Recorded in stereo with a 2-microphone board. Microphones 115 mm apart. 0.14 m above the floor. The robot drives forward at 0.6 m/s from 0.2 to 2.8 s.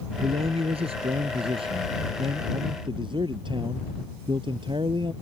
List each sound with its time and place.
0.2 s a man speaking: 60° right (ahead or behind); by 5.1 s 45° right (ahead or behind)